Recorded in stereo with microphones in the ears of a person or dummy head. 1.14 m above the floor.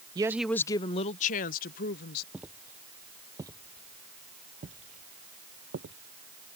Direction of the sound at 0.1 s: 15° right (ahead or behind).